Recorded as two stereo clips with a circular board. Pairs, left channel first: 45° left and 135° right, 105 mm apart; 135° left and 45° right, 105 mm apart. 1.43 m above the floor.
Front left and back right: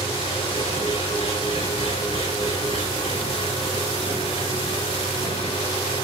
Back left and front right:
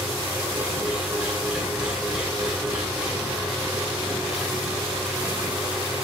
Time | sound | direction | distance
0.0 | an engine running | 35° left | 6.5 m